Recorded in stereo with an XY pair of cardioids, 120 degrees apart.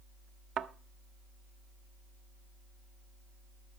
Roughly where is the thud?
Ahead right.